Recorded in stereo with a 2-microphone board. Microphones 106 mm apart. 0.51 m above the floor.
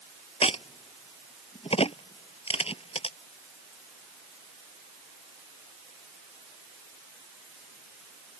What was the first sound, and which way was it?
A crack, 65° left (ahead or behind).